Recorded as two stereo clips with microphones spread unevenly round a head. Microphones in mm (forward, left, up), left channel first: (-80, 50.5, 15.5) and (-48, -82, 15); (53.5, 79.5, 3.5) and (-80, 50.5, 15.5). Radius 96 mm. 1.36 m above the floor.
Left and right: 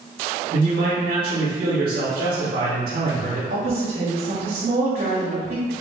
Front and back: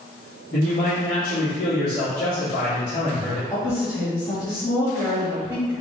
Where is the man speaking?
40° right, 2.5 m.